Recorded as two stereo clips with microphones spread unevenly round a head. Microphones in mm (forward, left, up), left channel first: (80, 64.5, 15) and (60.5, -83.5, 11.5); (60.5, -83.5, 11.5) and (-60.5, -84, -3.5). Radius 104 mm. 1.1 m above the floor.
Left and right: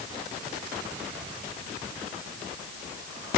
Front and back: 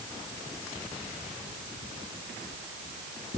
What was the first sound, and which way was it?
Only background noise.